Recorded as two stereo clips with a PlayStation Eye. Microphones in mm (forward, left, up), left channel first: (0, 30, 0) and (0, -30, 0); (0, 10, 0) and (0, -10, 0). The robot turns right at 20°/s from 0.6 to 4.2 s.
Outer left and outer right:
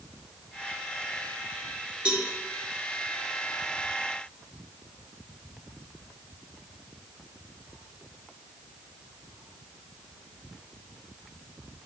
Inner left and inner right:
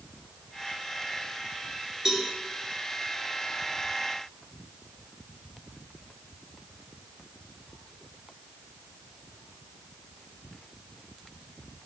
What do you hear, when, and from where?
2.0 s a cowbell: 15° right (ahead or behind), 1.7 m